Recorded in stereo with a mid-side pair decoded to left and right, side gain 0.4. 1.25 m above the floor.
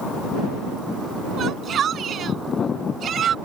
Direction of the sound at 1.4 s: 60° right.